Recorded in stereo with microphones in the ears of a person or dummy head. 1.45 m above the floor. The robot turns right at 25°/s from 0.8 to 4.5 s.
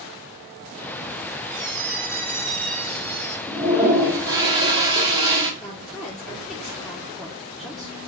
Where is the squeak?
90° right, 1.0 m; by 3.4 s 45° right, 1.0 m.